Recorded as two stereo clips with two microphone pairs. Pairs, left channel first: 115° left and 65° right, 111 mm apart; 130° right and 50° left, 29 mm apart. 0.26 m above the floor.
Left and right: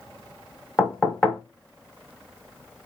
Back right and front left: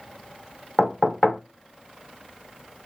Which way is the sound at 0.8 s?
165° right.